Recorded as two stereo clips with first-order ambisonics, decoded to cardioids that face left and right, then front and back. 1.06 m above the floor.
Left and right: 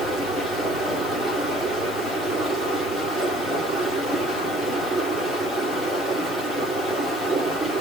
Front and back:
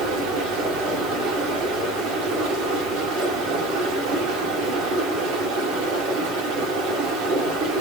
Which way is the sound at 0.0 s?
175° left.